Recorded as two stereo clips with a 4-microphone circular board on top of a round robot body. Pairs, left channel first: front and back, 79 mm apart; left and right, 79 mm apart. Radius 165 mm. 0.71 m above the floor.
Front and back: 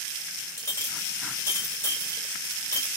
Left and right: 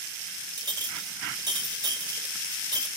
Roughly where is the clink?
Ahead right.